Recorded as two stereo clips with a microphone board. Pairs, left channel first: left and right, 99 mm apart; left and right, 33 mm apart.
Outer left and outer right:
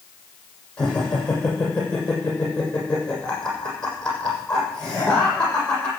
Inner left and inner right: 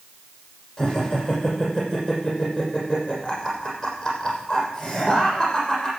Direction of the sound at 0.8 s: 10° left (ahead or behind).